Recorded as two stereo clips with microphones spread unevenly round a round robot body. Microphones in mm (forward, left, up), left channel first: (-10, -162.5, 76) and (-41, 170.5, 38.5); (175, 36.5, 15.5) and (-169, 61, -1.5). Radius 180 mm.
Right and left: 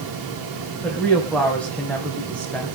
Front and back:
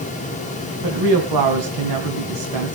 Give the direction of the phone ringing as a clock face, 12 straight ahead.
I don't hear a phone ringing.